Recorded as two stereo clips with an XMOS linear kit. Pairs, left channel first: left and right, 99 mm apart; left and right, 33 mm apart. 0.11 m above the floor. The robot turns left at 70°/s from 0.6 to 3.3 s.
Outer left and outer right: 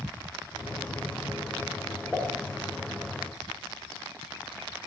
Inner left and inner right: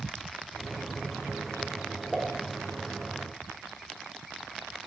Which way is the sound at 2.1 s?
5° left (ahead or behind).